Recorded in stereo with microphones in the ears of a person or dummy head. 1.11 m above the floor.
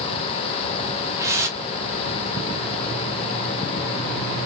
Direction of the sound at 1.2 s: 15° right (ahead or behind).